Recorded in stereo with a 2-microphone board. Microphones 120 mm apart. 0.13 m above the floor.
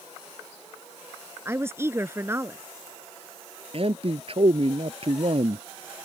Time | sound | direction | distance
1.4 | a woman speaking | 20° right (ahead or behind) | ?
3.7 | a man speaking | 55° right (ahead or behind) | ?